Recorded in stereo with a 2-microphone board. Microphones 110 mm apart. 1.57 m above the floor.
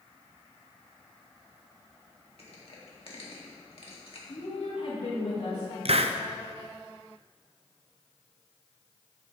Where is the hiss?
60° right (ahead or behind), 0.5 m.